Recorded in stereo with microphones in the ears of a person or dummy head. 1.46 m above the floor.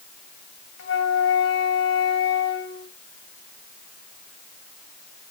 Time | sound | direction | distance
0.8 | a flute | 60° left (ahead or behind) | 2.5 m